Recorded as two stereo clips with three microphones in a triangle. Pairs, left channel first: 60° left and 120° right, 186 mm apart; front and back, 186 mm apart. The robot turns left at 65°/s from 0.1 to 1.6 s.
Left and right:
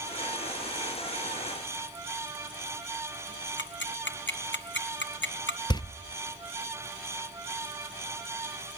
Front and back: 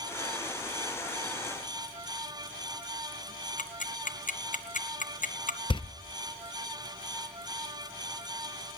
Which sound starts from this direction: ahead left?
Ticking, at 3.6 s.